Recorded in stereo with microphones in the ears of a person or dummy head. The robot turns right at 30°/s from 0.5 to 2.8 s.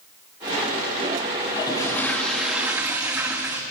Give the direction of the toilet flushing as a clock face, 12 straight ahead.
7 o'clock.